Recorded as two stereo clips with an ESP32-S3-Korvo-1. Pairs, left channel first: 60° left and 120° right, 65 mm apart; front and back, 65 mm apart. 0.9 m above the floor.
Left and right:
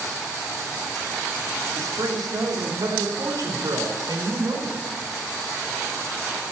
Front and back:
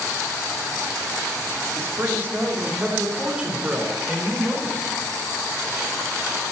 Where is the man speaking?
135° right, 2.5 m; by 4.8 s 95° right, 4.5 m.